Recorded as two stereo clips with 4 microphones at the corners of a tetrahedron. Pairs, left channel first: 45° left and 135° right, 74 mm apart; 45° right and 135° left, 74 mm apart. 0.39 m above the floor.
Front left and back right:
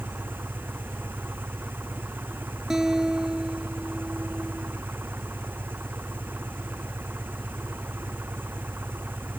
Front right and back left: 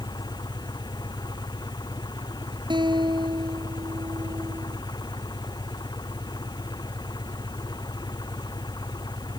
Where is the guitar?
140° left.